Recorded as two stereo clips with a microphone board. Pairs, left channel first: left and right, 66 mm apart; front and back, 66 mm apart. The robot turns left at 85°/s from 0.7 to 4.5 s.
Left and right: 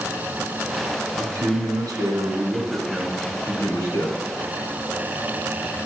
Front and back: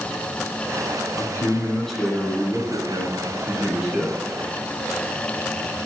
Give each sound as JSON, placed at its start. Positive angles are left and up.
{"t": 1.2, "sound": "a man speaking", "azimuth_deg": -25, "distance_m": 2.5}